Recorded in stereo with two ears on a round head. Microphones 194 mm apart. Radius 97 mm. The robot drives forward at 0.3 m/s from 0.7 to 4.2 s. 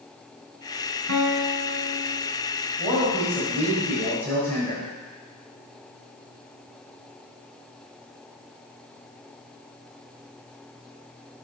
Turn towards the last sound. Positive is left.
turn(degrees=10)  # may be behind; listen again after turning